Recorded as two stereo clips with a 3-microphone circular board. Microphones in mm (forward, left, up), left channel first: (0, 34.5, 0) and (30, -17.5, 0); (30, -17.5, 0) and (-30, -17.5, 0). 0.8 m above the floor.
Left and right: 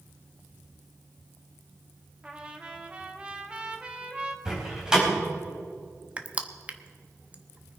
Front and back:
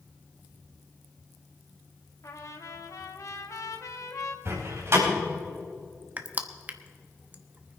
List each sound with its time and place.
2.2 s a trumpet: 10° left, 1.3 m
4.5 s a door slam: 140° right, 4 m
6.2 s crushing: 125° right, 0.9 m